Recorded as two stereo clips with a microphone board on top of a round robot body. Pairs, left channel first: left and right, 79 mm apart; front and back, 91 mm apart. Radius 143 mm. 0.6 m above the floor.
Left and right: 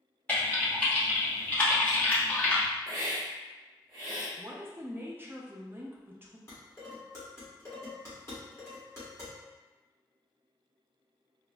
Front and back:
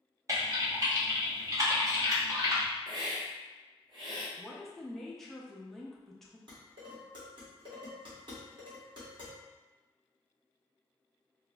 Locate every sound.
0.3 s typing on a keyboard: 155° left, 1.2 m
2.9 s a hiss: 135° right, 0.7 m
4.4 s a woman speaking: 80° right, 0.8 m
6.5 s dishes clattering: 150° left, 1.5 m